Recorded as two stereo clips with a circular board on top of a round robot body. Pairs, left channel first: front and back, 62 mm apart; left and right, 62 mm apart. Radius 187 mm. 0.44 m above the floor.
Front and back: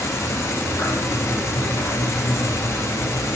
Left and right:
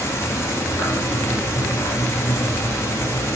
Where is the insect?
45° left, 2 m.